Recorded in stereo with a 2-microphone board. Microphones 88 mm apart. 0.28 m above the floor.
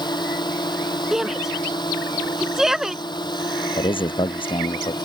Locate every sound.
0.0 s a drone: 55° left (ahead or behind)
1.1 s a shout: 5° right (ahead or behind)
3.8 s a man speaking: 80° left